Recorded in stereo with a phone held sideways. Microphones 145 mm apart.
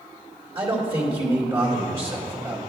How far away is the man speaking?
About 2 m.